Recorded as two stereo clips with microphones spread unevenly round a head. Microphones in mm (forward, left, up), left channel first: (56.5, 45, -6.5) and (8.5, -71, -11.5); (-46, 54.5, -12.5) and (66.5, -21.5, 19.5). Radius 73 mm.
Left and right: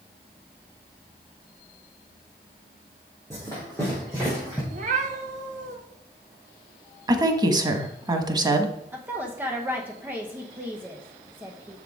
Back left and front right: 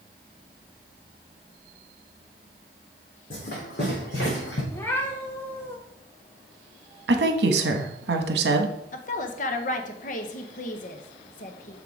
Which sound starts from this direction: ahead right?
A woman speaking, at 7.1 s.